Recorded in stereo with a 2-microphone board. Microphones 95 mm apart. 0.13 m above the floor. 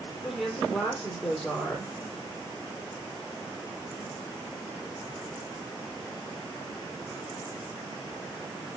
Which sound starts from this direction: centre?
A woman speaking, at 0.2 s.